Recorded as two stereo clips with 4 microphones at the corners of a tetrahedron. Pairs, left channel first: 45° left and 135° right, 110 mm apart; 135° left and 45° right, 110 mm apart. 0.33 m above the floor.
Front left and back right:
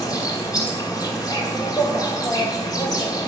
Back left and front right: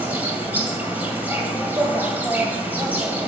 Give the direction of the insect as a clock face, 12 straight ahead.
11 o'clock.